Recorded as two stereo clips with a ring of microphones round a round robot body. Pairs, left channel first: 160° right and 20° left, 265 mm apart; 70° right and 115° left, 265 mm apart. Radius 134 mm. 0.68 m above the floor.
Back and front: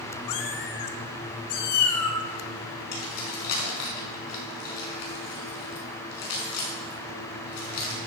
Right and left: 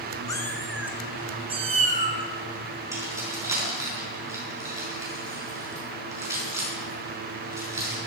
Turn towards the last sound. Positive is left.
turn(degrees=-170)